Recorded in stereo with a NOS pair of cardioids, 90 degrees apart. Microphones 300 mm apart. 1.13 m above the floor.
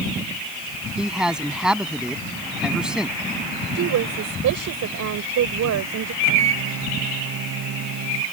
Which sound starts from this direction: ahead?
A man speaking, at 1.0 s.